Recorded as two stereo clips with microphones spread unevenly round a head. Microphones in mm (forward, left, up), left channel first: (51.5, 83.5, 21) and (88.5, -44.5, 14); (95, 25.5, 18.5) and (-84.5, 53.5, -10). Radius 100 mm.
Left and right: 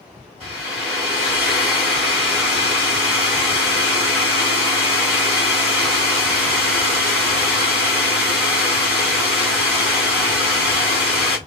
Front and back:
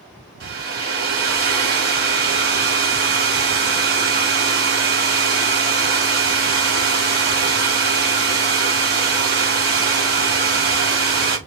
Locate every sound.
0.4 s a hair dryer: 140° right, 1.7 m